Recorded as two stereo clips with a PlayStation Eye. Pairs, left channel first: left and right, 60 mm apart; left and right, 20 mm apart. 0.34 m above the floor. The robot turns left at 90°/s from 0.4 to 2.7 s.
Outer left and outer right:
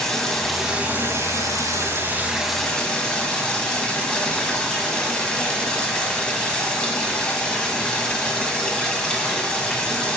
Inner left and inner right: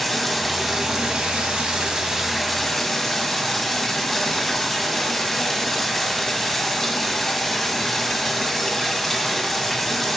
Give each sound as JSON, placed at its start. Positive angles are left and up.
{"t": 0.0, "sound": "running water", "azimuth_deg": 10, "distance_m": 1.3}